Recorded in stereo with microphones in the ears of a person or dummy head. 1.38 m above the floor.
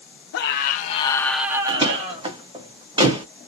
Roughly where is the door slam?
Right.